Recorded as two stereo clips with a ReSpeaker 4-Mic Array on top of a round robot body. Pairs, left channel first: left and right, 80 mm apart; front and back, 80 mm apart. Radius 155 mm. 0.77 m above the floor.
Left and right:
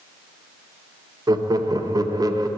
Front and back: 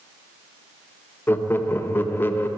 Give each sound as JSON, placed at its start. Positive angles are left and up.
{"t": 1.3, "sound": "laughter", "azimuth_deg": -60, "distance_m": 0.9}